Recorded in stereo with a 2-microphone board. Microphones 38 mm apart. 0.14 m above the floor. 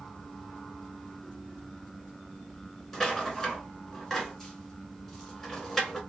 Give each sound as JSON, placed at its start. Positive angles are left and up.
{"t": 2.9, "sound": "a rattle", "side_deg": 5, "distance_m": 1.1}